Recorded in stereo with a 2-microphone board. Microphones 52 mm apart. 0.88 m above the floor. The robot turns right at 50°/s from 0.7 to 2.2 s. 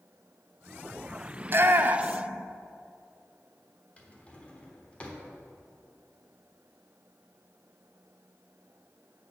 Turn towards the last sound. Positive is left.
turn(degrees=25)  # may be behind; listen again after turning